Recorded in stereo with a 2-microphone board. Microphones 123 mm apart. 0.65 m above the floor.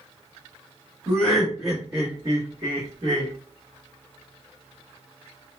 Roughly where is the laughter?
Centre.